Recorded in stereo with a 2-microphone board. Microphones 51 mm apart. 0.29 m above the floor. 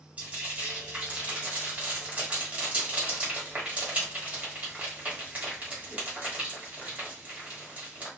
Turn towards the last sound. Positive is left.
turn(degrees=-25)  # may be behind; listen again after turning